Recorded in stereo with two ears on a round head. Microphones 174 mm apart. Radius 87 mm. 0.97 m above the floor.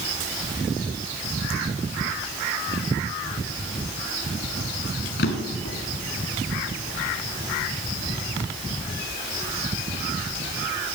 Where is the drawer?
65° left (ahead or behind), 2.5 m.